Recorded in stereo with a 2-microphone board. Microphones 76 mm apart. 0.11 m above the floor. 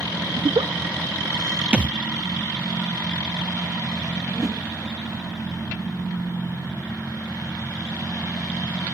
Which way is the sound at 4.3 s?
40° right (ahead or behind).